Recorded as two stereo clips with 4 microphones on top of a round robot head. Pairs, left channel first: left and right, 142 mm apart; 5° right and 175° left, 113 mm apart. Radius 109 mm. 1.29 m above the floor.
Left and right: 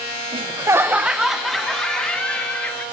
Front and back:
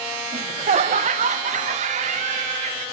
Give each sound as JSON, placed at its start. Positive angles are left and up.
{"t": 0.3, "sound": "laughter", "azimuth_deg": -140, "distance_m": 0.8}